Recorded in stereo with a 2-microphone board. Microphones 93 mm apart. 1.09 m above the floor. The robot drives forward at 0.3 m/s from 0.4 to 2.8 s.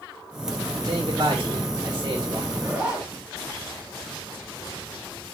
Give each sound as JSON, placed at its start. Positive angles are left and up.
{"t": 0.8, "sound": "a man speaking", "side_deg": -50, "distance_m": 1.6}
{"t": 2.5, "sound": "a zipper", "side_deg": -10, "distance_m": 3.0}